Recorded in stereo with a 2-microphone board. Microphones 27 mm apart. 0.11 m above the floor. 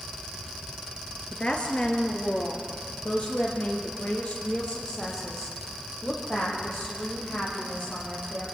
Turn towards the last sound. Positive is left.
turn(degrees=55)  # may be behind; listen again after turning